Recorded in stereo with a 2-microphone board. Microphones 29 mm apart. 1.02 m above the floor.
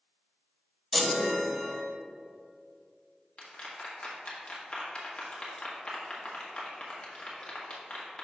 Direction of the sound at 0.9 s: 5° left (ahead or behind).